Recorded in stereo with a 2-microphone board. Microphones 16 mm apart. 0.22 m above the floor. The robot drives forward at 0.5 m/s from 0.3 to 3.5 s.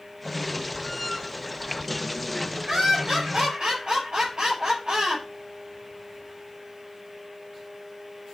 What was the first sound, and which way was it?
Laughter, 65° right (ahead or behind).